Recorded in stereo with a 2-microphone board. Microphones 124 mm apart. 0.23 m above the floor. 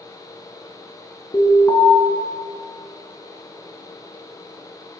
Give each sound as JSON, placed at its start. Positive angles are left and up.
{"t": 1.3, "sound": "an alarm", "side_deg": 30, "distance_m": 3.0}